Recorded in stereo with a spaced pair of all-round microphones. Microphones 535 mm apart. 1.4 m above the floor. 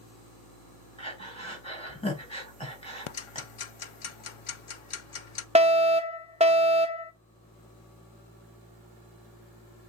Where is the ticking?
70° left (ahead or behind), 0.6 m.